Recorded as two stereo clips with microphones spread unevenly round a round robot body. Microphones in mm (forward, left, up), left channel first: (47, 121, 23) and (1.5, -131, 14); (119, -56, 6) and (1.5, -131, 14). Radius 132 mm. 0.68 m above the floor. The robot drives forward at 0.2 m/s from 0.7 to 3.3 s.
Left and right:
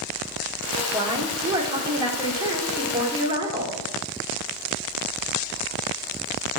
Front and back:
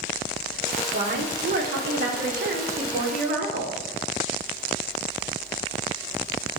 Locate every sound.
0.9 s a woman speaking: 175° right, 1.6 m